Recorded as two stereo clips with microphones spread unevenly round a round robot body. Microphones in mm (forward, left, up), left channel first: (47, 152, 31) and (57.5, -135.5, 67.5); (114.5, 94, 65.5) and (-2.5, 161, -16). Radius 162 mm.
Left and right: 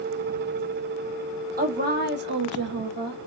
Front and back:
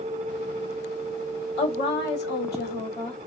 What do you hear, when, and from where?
1.6 s a woman speaking: 30° right, 1.6 m; by 3.2 s 105° right, 1.0 m